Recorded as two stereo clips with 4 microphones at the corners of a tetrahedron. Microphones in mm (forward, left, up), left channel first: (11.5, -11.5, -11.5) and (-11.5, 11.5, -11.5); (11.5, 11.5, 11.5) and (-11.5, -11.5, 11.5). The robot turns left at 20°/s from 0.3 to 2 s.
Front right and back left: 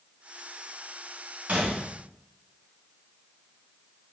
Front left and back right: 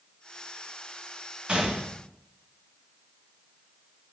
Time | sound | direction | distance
1.5 | a gunshot | 170° left | 0.7 m